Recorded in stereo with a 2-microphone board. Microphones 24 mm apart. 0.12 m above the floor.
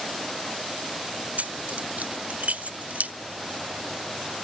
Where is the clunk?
No clunk in this recording.